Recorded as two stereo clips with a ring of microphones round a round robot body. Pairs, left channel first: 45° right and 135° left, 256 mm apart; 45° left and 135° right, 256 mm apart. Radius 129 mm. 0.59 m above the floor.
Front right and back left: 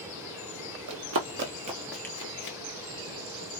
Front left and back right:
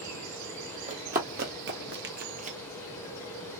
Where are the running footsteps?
165° left, 1.2 m; by 2.6 s 75° right, 0.8 m.